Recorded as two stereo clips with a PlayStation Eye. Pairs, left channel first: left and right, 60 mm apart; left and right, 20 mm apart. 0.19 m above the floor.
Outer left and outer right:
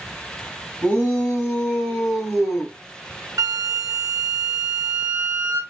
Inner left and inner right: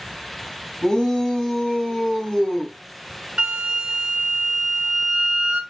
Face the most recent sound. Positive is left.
turn(degrees=-65)  # may be behind; listen again after turning